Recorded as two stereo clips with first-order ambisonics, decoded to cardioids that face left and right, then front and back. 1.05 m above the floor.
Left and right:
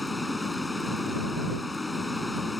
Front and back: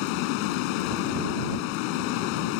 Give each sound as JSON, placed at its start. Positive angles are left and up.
{"t": 0.0, "sound": "running water", "azimuth_deg": 5}